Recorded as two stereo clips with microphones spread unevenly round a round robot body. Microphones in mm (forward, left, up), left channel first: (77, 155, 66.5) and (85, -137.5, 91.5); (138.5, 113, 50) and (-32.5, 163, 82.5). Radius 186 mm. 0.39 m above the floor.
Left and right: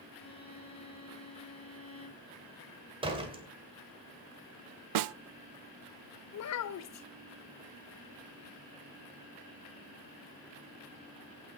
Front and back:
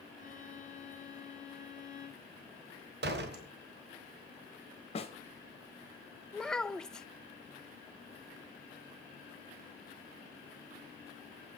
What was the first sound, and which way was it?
A violin, 20° left.